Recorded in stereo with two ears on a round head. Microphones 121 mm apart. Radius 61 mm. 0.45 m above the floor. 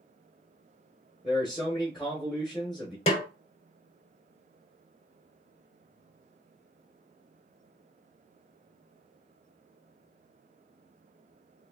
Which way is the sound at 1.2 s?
Centre (ahead or behind).